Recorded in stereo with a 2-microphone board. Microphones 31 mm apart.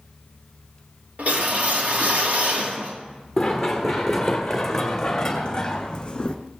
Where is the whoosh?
60° right (ahead or behind), 2.5 m.